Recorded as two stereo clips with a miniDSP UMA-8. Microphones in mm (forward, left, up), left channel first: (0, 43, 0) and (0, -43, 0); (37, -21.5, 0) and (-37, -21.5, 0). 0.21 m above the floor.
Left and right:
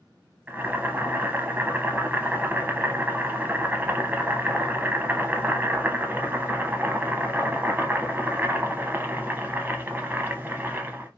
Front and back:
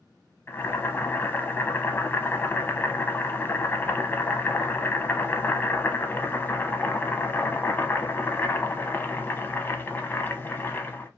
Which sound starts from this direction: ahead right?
Boiling, at 0.5 s.